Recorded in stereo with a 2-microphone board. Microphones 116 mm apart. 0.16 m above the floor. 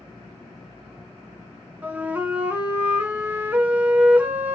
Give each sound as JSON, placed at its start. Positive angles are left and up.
{"t": 1.8, "sound": "a flute", "side_deg": -15, "distance_m": 1.3}